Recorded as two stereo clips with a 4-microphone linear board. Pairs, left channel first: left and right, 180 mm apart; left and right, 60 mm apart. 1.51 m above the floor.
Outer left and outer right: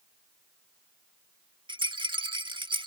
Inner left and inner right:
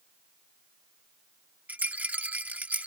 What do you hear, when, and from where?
1.7 s a rattle: 25° right (ahead or behind)